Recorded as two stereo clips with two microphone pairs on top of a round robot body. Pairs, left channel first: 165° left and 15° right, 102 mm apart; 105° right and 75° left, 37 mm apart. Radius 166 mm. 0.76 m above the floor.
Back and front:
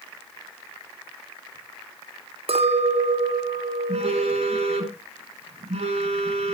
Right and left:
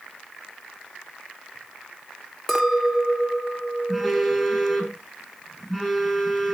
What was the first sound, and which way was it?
A clink, 20° right.